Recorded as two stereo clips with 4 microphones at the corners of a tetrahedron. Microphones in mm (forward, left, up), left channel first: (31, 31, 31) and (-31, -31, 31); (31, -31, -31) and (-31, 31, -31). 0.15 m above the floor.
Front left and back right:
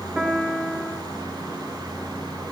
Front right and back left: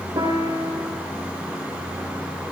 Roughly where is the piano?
Behind left.